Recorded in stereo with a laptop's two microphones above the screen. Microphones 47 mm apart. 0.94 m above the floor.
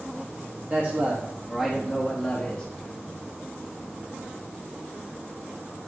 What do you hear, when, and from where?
0.7 s a man speaking: 40° right (ahead or behind), 1.1 m; by 2.7 s 25° left (ahead or behind), 1.4 m